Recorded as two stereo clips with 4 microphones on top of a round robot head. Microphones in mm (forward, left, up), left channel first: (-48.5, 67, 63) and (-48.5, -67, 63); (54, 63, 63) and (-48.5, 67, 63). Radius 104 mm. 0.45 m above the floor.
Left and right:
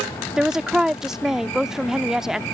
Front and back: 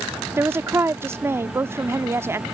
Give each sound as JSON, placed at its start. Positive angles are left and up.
{"t": 0.4, "sound": "a woman speaking", "azimuth_deg": -170}